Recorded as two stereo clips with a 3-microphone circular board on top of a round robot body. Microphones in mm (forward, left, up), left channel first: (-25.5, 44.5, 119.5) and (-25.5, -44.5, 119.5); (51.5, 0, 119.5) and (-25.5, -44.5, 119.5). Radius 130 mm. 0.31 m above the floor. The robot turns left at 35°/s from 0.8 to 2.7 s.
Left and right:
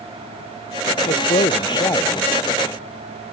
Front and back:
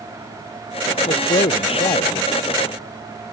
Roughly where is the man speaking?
Left.